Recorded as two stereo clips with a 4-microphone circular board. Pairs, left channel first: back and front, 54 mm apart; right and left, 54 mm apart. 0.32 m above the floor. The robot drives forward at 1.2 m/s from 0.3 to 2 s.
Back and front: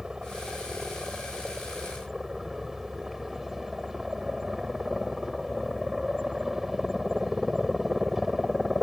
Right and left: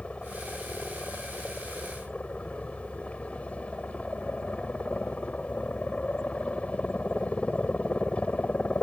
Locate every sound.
0.0 s a helicopter: 65° right; by 8.8 s 75° right